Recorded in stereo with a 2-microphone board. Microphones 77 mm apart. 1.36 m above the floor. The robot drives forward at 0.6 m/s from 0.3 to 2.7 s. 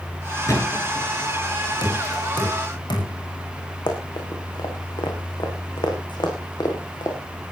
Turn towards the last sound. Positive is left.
turn(degrees=75)  # may be behind; listen again after turning